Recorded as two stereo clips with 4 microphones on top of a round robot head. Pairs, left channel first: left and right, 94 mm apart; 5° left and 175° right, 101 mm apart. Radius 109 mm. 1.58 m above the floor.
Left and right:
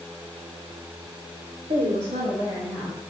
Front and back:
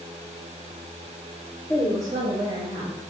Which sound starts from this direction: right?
A woman speaking, at 1.7 s.